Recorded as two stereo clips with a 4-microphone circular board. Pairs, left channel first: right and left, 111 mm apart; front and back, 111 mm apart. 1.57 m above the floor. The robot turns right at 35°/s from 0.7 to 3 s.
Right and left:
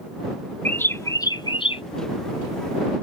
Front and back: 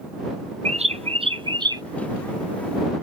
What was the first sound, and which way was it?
A bird, 165° right.